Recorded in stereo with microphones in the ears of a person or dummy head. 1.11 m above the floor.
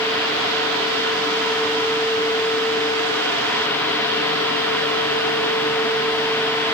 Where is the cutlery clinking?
No cutlery clinking in this recording.